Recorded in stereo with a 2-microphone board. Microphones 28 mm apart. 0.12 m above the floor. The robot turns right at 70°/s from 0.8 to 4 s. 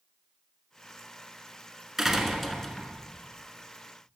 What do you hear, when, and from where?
2.0 s a door slam: 10° right (ahead or behind), 1.0 m; by 3.0 s 20° left (ahead or behind), 1.0 m